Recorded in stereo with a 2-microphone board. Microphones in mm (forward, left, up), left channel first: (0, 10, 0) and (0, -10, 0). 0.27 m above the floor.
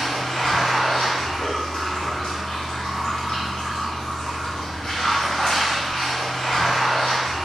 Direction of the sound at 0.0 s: 65° left (ahead or behind).